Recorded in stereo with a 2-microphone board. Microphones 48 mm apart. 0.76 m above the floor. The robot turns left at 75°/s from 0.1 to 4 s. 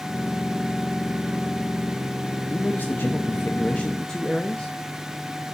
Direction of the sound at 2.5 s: 140° left.